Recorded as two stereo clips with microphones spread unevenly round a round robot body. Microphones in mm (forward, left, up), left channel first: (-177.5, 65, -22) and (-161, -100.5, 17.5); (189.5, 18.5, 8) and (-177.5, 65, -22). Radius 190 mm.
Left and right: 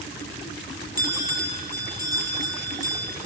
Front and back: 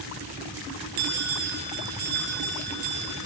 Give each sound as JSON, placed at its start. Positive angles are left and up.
{"t": 1.0, "sound": "a bell", "azimuth_deg": -150, "distance_m": 4.0}